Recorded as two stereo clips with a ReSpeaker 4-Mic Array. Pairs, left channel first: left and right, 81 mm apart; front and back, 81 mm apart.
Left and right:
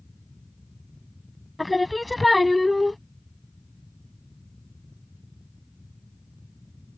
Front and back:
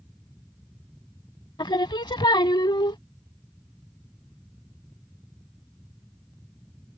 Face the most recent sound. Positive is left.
turn(degrees=0)